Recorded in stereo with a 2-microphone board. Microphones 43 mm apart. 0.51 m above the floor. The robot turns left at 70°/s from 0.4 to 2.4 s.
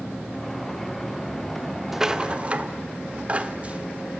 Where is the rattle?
5° right (ahead or behind), 0.9 m; by 4.2 s 30° right (ahead or behind), 0.9 m.